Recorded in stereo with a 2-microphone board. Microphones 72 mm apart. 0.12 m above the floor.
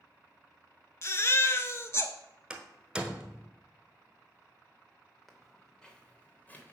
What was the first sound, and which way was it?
A baby crying, 40° left (ahead or behind).